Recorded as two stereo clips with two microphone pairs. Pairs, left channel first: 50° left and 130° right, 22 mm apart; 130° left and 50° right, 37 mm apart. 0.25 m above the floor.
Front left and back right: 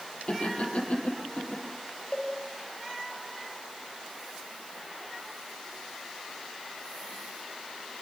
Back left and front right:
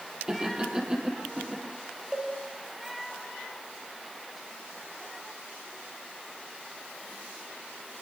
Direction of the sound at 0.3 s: 15° left.